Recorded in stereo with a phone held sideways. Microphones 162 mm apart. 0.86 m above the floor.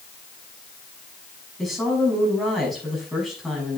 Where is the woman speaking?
Centre (ahead or behind), 6 m.